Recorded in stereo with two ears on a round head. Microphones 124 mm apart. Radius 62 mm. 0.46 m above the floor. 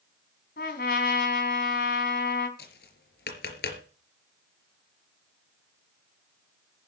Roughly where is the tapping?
Left.